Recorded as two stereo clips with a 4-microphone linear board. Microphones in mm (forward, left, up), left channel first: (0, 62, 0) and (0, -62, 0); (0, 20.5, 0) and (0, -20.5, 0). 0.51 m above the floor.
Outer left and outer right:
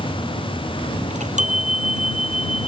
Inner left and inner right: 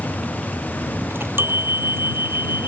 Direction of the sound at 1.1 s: 75° right (ahead or behind).